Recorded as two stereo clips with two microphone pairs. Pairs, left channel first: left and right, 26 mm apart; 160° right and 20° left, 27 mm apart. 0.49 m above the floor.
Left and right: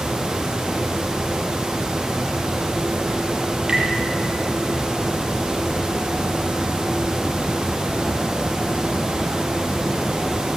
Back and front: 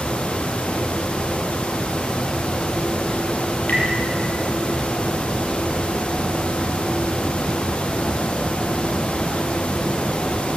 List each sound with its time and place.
3.7 s tapping: 150° right, 6.5 m